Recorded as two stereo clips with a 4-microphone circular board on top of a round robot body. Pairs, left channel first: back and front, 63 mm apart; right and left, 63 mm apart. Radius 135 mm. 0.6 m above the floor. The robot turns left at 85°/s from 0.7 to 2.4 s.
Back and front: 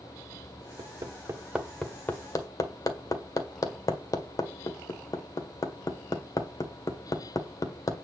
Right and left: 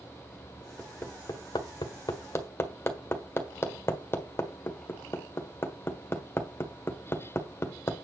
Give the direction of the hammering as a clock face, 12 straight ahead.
12 o'clock.